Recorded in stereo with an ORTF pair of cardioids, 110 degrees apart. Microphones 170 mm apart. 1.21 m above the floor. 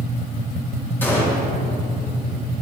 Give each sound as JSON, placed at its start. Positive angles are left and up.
{"t": 1.0, "sound": "a gunshot", "azimuth_deg": 10, "distance_m": 2.5}